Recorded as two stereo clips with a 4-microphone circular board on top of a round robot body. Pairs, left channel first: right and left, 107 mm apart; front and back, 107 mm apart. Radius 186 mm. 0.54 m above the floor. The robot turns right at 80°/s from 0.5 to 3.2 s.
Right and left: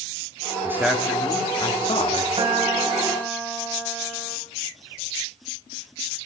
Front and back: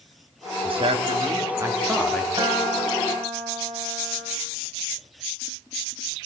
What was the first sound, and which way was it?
A man speaking, 155° left.